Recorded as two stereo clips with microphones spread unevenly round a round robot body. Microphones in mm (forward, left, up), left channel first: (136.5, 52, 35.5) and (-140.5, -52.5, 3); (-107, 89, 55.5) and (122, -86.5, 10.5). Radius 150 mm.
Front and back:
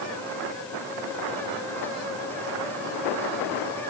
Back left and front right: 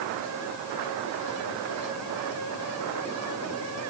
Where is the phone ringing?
No phone ringing in this recording.